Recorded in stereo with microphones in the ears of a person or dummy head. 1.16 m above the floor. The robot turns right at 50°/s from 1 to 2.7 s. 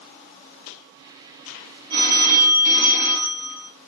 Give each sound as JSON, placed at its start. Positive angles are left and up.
{"t": 1.9, "sound": "a phone ringing", "azimuth_deg": -100, "distance_m": 1.7}